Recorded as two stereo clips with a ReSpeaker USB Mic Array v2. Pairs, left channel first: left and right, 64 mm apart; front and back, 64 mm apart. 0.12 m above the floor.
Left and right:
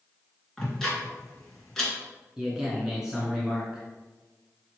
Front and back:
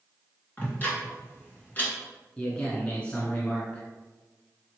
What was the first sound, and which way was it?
Ticking, 10° left.